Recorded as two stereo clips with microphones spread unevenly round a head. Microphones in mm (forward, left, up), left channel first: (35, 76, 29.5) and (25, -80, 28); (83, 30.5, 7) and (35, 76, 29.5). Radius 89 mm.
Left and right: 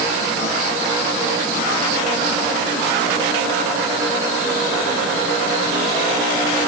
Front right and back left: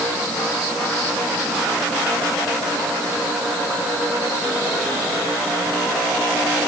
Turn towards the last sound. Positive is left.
No sound to turn to.